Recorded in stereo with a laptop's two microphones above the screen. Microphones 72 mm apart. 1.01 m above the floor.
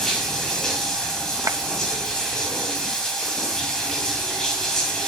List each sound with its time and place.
0.0 s running water: 10° left (ahead or behind), 3 m
1.5 s a clap: 50° right (ahead or behind), 1.0 m